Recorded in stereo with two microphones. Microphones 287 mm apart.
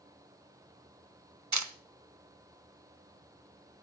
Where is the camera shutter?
75° right (ahead or behind), 1.2 m.